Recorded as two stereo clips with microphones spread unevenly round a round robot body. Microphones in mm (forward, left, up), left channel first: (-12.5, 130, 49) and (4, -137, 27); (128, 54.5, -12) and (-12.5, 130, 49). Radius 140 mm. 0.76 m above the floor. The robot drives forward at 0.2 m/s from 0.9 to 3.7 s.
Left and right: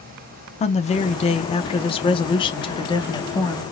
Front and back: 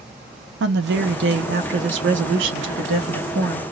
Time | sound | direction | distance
0.6 | a woman speaking | 160° left | 0.7 m